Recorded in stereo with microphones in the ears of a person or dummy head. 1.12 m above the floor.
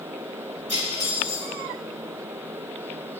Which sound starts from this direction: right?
Cutlery clinking, at 0.7 s.